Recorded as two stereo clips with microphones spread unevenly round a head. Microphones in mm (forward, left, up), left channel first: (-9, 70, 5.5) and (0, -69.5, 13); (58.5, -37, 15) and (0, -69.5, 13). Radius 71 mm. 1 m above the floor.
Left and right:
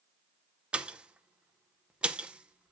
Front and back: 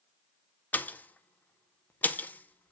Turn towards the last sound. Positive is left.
turn(degrees=-5)